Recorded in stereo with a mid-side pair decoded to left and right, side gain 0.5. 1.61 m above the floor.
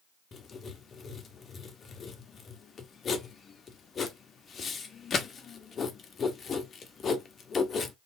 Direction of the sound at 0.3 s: 40° left.